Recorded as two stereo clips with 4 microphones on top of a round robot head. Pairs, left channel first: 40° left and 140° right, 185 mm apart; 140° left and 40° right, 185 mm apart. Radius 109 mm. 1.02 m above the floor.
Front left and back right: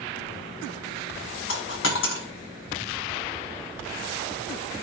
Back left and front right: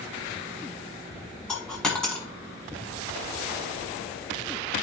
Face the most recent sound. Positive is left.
turn(degrees=55)